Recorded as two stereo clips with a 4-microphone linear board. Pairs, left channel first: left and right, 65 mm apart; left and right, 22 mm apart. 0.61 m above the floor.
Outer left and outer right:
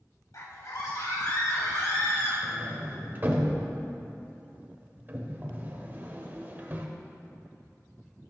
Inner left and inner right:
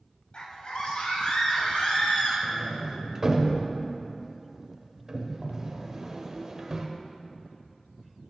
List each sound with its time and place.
0.3 s a scream: 60° left (ahead or behind), 2 m; by 2.3 s 70° left (ahead or behind), 4.5 m
2.4 s a sliding door: 35° right (ahead or behind), 1.0 m